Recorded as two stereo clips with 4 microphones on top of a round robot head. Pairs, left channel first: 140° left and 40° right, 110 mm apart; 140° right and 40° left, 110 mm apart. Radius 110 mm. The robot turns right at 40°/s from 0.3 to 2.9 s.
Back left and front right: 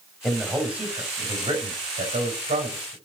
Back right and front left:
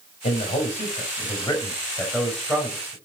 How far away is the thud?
I don't hear a thud.